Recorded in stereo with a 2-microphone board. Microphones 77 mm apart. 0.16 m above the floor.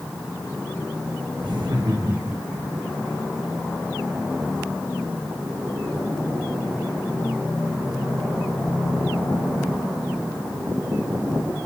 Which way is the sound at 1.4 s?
75° right (ahead or behind).